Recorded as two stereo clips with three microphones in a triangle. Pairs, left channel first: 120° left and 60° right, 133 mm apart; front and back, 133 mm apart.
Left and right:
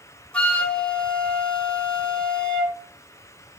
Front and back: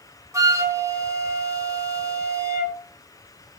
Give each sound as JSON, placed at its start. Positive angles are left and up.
{"t": 0.3, "sound": "a flute", "azimuth_deg": -170, "distance_m": 0.7}